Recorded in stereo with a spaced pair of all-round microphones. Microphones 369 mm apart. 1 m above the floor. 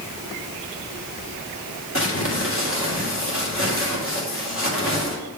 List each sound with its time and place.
1.9 s crumpling: 35° left (ahead or behind), 2 m